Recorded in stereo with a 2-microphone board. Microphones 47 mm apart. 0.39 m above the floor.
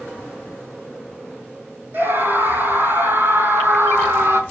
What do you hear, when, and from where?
1.9 s a scream: 45° right (ahead or behind), 5 m; by 4.4 s 55° right (ahead or behind), 3.5 m